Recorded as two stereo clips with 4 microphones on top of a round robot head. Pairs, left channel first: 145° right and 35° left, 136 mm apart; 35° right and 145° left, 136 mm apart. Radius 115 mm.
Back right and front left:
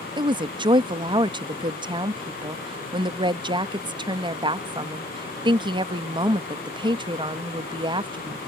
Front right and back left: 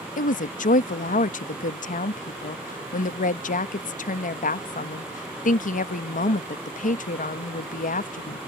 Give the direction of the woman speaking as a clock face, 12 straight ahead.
1 o'clock.